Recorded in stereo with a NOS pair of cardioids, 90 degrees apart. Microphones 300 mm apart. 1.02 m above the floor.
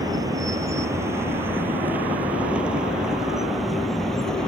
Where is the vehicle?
15° right; by 4.5 s straight ahead.